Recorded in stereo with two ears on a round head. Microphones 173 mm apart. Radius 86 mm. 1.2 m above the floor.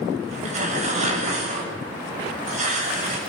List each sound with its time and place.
0.3 s tearing paper: 40° right (ahead or behind), 7 m